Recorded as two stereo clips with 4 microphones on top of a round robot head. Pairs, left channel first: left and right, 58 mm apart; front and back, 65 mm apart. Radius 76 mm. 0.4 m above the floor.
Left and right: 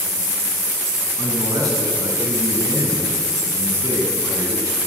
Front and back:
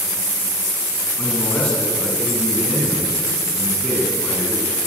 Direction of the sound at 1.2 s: 80° right.